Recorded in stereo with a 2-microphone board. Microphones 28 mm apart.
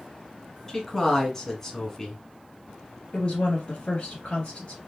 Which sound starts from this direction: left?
A woman speaking, at 3.1 s.